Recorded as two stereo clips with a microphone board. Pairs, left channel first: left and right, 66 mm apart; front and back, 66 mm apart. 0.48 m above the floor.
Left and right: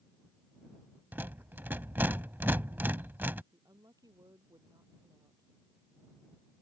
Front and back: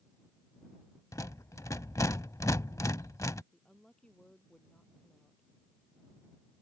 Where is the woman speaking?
75° right.